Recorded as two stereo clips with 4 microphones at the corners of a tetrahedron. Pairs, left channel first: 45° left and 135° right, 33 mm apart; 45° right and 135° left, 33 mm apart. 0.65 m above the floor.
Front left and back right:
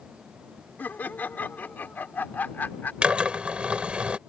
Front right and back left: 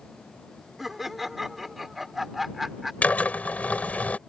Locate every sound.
0.8 s laughter: 50° left
3.0 s a drill: 80° right